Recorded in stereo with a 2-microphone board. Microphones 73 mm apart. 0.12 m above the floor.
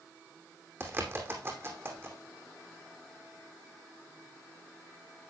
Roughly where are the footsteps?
I don't hear footsteps.